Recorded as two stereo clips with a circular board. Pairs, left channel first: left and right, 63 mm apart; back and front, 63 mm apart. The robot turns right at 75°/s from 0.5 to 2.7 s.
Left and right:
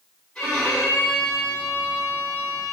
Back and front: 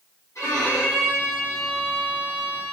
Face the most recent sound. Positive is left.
turn(degrees=-25)